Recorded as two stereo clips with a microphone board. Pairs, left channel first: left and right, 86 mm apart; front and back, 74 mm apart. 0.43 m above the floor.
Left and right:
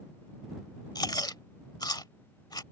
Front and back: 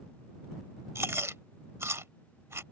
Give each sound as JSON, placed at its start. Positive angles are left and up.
{"t": 0.9, "sound": "chewing", "azimuth_deg": 130}